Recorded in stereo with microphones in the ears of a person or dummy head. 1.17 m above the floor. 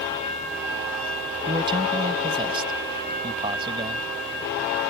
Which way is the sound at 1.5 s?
25° right (ahead or behind).